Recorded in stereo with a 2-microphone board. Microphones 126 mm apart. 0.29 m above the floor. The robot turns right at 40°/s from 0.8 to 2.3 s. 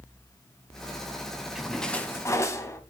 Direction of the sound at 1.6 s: 5° right (ahead or behind).